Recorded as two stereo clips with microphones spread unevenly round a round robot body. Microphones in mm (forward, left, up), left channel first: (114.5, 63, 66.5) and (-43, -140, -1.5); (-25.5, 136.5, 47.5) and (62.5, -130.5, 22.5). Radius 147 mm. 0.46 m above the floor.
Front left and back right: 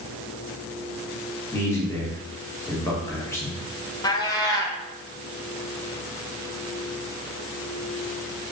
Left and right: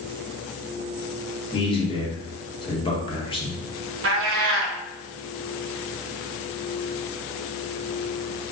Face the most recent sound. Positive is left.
turn(degrees=-30)